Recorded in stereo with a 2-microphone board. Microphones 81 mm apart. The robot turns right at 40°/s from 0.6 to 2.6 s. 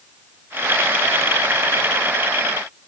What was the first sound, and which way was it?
Only background noise.